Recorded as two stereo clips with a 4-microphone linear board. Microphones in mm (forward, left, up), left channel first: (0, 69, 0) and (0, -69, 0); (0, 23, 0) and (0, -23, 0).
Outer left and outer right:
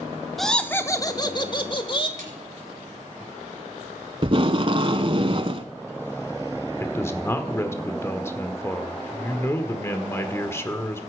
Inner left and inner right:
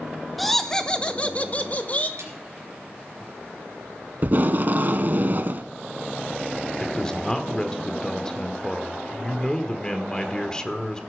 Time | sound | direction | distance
0.4 | laughter | centre (ahead or behind) | 0.9 m
2.2 | a snare drum | 85° right | 3 m
4.2 | tape being pulled | 45° right (ahead or behind) | 0.8 m
6.8 | a man speaking | 20° left (ahead or behind) | 1.4 m